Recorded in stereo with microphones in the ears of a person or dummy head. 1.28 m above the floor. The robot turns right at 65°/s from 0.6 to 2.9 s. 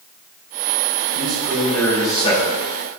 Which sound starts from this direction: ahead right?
A man speaking, at 1.1 s.